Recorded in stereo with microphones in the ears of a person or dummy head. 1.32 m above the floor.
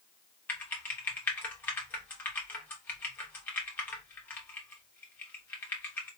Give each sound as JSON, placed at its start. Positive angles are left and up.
{"t": 0.5, "sound": "typing on a keyboard", "side_deg": 10, "distance_m": 1.0}